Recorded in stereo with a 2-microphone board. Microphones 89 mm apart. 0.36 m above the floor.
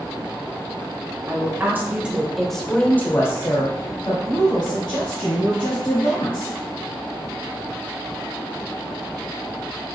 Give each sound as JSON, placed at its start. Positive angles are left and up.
{"t": 1.3, "sound": "a woman speaking", "side_deg": -30, "distance_m": 1.1}